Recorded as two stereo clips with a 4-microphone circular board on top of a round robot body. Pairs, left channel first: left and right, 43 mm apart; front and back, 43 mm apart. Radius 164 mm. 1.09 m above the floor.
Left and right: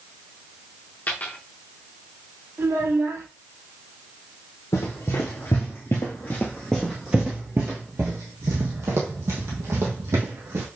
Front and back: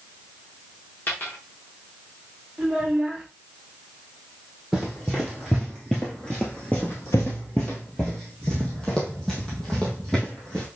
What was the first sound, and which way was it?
A dropped coin, 45° left.